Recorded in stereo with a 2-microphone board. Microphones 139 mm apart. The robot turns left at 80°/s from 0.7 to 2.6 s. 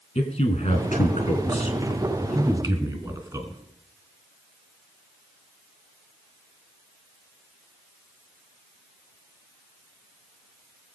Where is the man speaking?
55° left (ahead or behind), 3.5 m; by 3.6 s 30° right (ahead or behind), 3.5 m.